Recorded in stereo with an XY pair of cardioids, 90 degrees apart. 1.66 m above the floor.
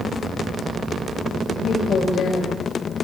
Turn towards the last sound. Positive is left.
turn(degrees=65)